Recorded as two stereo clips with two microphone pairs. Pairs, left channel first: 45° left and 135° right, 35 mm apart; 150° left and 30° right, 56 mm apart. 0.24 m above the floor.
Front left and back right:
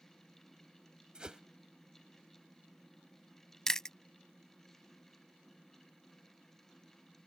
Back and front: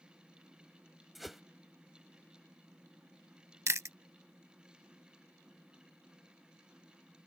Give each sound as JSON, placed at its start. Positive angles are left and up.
{"t": 1.1, "sound": "a whoosh", "azimuth_deg": -115}
{"t": 3.7, "sound": "chewing", "azimuth_deg": -25}